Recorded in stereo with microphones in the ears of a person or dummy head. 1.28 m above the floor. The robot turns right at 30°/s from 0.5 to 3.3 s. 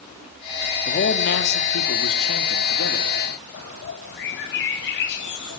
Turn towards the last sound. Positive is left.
turn(degrees=70)  # may be behind; listen again after turning